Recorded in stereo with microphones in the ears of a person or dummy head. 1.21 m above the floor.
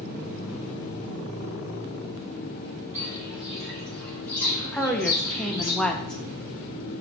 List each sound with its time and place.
2.9 s footsteps: 10° right (ahead or behind), 1.7 m; by 5.7 s 25° left (ahead or behind), 3 m
4.7 s a woman speaking: 5° left (ahead or behind), 0.6 m